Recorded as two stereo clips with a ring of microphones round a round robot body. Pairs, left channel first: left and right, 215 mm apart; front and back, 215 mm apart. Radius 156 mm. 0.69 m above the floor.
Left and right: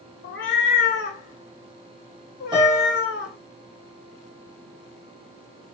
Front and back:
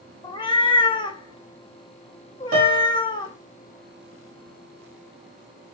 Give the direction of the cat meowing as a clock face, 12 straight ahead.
10 o'clock.